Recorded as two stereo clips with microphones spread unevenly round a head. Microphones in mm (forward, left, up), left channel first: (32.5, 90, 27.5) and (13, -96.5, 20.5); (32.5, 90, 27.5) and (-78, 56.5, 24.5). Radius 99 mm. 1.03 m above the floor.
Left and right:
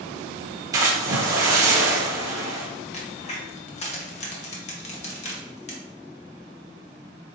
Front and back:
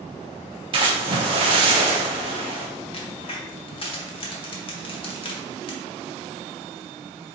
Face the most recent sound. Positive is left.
turn(degrees=40)